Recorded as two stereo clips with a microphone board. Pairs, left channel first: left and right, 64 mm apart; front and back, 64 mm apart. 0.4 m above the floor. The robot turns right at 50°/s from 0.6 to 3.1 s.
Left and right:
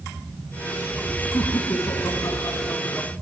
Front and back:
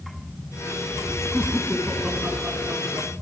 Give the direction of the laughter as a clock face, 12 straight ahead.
10 o'clock.